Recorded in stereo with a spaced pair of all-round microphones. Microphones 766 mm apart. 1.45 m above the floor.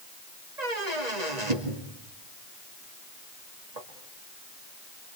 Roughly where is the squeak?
Right.